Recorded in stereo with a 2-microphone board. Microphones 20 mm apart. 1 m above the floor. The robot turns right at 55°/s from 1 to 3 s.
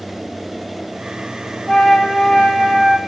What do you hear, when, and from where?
1.7 s a flute: 100° left, 3.5 m; by 3.0 s 175° left, 3.5 m